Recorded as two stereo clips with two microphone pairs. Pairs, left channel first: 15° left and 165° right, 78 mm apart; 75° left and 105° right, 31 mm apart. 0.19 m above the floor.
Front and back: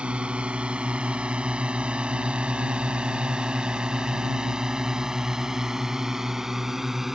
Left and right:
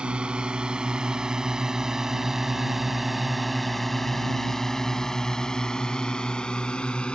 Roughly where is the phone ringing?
I don't hear a phone ringing.